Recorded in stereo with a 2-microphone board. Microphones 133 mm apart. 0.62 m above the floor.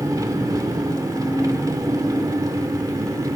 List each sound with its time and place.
0.0 s an engine running: 30° right (ahead or behind), 1.5 m